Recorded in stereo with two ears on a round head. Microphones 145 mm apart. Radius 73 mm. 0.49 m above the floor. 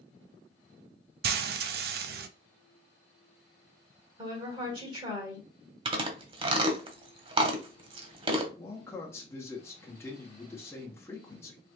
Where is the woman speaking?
30° right (ahead or behind), 2.0 m.